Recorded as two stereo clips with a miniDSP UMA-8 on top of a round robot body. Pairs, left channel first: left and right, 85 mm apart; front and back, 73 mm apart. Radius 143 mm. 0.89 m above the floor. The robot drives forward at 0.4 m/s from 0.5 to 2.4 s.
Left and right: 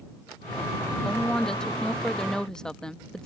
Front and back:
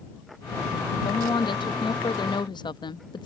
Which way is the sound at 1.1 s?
5° left.